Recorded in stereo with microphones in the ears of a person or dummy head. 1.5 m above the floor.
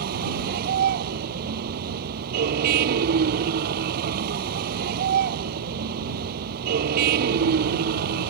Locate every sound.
0.0 s a vehicle: 55° right (ahead or behind)